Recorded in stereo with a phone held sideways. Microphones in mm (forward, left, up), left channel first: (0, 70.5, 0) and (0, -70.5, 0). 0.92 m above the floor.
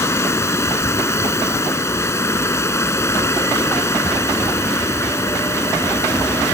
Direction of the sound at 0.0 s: 20° left (ahead or behind).